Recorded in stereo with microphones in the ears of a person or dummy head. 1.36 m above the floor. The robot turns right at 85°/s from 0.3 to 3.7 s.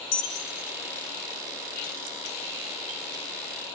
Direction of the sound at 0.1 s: 75° left (ahead or behind).